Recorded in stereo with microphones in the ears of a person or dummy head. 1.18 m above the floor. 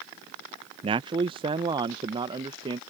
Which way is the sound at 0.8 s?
20° right (ahead or behind).